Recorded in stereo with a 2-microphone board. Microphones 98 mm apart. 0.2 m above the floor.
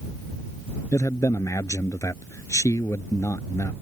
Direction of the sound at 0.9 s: 30° left (ahead or behind).